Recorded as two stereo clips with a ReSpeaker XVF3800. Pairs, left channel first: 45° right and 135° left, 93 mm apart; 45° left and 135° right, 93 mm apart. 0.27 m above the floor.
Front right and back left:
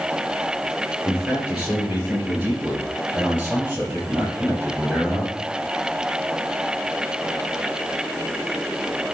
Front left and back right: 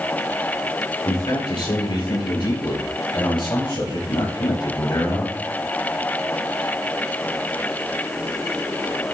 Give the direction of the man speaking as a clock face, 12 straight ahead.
10 o'clock.